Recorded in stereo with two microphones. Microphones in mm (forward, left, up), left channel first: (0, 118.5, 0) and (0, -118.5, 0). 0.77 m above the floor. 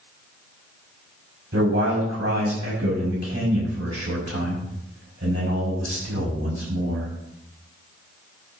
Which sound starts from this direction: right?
A man speaking, at 1.5 s.